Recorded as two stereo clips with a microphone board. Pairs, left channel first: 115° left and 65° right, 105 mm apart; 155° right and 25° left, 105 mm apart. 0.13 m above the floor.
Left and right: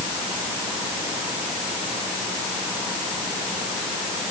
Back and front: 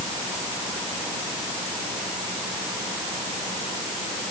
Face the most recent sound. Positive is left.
No sound to turn to.